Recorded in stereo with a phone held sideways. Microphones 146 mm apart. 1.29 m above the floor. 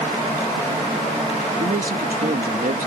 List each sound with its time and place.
1.6 s a man speaking: 70° right (ahead or behind)